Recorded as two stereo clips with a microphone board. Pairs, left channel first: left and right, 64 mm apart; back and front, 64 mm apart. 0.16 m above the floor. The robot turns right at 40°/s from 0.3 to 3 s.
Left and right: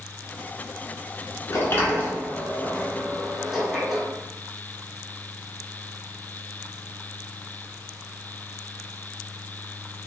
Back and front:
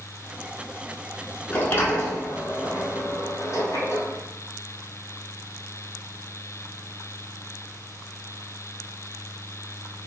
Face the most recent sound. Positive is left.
turn(degrees=-175)